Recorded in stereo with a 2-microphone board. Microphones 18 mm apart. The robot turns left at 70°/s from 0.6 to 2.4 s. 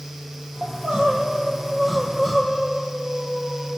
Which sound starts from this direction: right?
Crying, at 0.6 s.